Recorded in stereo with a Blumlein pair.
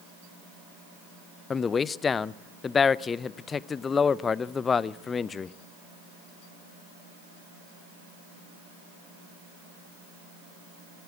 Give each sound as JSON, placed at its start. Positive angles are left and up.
{"t": 1.5, "sound": "a man speaking", "azimuth_deg": 20, "distance_m": 0.5}